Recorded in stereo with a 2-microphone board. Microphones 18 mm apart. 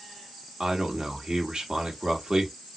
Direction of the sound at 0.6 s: 55° right (ahead or behind).